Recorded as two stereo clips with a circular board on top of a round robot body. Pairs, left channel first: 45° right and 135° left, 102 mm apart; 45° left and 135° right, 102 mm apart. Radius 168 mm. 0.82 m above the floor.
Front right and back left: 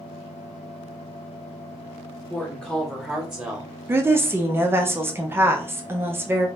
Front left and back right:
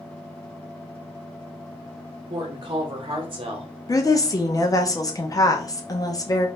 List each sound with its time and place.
2.3 s a woman speaking: 115° right, 1.0 m; by 3.8 s 160° right, 1.3 m
3.9 s a woman speaking: 80° left, 1.1 m